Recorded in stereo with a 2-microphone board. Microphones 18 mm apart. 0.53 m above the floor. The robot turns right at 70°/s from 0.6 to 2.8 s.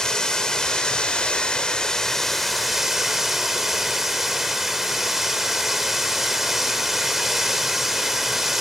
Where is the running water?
40° left, 1.8 m; by 8.6 s 165° right, 1.8 m.